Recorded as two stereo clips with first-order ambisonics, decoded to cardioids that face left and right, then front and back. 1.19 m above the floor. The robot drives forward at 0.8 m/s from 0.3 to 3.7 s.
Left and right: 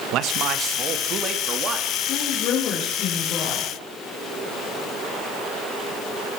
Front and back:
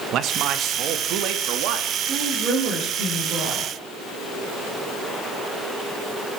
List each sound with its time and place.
0.1 s a man speaking: 130° right, 1.4 m; by 1.9 s 155° right, 2.5 m
2.0 s a woman speaking: 125° left, 4 m; by 3.7 s 140° left, 5 m